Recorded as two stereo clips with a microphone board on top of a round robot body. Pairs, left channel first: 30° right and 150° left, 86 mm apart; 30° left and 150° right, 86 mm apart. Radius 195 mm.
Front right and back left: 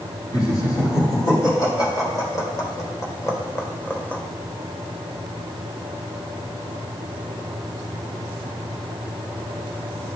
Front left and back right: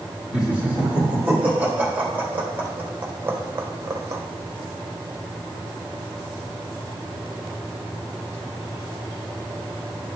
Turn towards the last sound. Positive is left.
turn(degrees=-100)